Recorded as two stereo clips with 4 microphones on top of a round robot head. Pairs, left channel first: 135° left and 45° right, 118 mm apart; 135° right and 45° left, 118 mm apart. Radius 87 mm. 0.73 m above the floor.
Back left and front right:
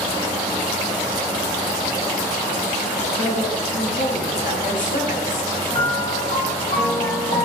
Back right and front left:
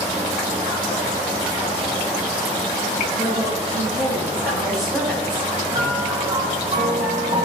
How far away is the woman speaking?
About 4.5 m.